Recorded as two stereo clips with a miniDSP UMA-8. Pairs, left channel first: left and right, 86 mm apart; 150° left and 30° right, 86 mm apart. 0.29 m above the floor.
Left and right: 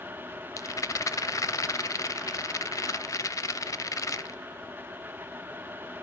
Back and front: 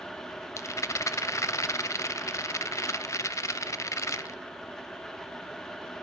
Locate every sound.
0.6 s a rattle: 115° left, 0.5 m